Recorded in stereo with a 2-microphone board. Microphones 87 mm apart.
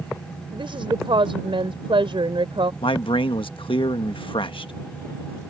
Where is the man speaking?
75° left (ahead or behind).